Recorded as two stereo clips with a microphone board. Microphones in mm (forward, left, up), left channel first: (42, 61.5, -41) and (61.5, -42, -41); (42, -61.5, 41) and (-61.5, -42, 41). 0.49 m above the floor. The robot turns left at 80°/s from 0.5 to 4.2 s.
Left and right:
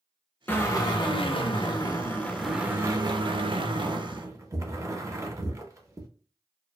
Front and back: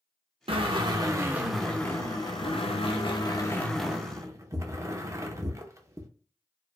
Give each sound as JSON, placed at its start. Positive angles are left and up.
{"t": 0.5, "sound": "a drill", "azimuth_deg": 165, "distance_m": 0.5}